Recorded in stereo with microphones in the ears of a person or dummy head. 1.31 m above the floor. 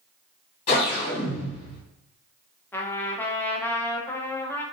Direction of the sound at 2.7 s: 10° left (ahead or behind).